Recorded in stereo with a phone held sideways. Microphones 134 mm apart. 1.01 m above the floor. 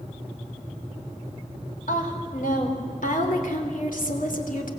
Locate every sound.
1.9 s a woman speaking: 85° left, 4 m; by 4.7 s 80° left, 2.5 m